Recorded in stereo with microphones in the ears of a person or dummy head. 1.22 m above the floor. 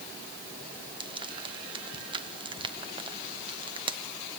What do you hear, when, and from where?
1.0 s frying: 25° right (ahead or behind), 1.0 m